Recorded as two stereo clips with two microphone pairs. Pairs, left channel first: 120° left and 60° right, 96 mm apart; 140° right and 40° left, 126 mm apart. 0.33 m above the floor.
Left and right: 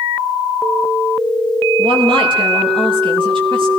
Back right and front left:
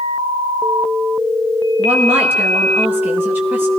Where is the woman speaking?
35° right, 6.5 m.